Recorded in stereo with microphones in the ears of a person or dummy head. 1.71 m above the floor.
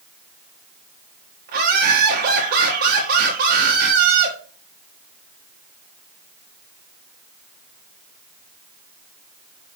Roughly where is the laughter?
Right.